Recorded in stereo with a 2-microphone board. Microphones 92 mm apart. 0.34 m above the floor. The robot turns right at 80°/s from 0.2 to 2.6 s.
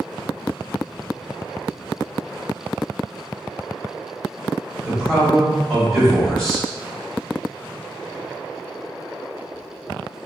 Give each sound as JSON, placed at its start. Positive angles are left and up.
{"t": 4.8, "sound": "a man speaking", "side_deg": 5, "distance_m": 1.8}